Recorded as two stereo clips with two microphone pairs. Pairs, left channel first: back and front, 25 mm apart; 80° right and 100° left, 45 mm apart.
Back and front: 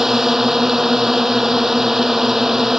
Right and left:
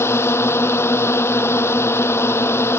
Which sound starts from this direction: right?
A drone, at 0.0 s.